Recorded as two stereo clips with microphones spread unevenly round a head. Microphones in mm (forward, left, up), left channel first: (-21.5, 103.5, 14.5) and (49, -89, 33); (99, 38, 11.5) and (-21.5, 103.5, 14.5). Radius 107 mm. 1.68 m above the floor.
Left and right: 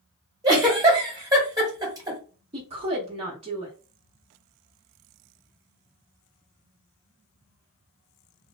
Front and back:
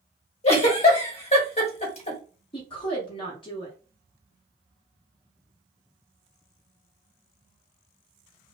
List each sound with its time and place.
0.4 s a giggle: 5° right, 1.1 m
2.5 s a woman speaking: 45° right, 0.6 m